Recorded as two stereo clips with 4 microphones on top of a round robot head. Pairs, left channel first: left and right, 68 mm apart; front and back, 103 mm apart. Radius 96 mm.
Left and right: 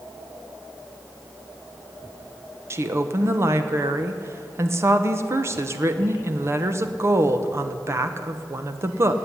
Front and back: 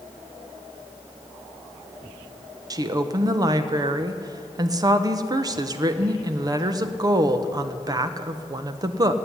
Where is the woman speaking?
135° right, 1.0 m.